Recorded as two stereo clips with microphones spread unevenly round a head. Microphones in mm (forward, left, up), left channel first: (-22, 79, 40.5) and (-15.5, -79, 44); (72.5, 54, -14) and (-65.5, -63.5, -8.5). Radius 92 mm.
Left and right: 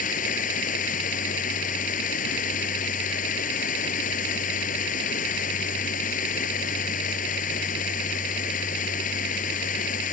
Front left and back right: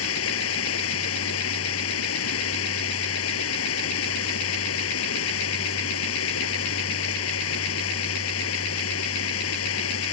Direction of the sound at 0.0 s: 50° left.